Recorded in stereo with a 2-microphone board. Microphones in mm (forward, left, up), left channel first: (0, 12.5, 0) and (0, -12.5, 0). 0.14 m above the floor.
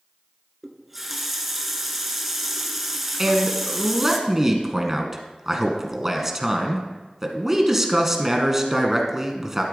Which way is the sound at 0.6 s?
10° right (ahead or behind).